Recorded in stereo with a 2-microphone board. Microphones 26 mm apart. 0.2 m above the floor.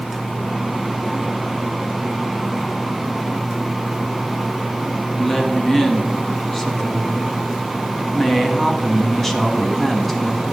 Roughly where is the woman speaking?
Centre.